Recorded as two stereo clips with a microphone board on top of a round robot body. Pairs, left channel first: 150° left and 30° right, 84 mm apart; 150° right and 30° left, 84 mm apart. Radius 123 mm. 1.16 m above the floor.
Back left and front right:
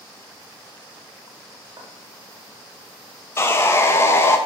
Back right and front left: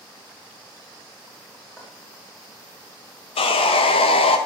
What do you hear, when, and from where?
1.8 s footsteps: 80° right, 3.5 m
3.4 s sawing: 145° right, 0.8 m